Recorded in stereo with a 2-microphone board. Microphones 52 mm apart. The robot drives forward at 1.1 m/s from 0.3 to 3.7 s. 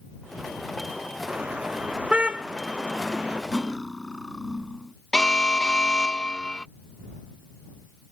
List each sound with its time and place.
1.3 s a car horn: 20° right (ahead or behind)
3.5 s cutlery clinking: 10° left (ahead or behind)
5.1 s an alarm: 15° left (ahead or behind)